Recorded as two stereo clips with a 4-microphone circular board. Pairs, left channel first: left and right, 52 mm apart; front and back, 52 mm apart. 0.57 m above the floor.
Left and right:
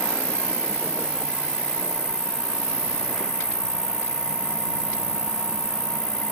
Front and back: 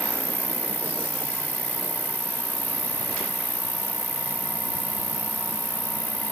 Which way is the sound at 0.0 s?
55° left.